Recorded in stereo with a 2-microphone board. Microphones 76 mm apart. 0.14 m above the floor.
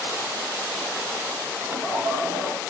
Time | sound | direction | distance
1.6 | laughter | 35° right (ahead or behind) | 6 m